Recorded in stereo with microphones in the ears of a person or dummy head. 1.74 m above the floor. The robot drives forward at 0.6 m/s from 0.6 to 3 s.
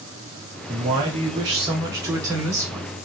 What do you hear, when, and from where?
0.7 s a man speaking: 20° right (ahead or behind), 0.7 m; by 2.9 s 10° right (ahead or behind), 1.3 m